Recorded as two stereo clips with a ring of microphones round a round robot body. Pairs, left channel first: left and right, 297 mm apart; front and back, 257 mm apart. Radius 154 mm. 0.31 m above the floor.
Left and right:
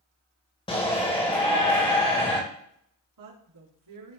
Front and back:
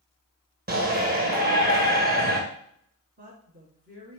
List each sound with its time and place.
0.7 s a shout: 155° left, 1.6 m
3.2 s a woman speaking: 115° right, 4 m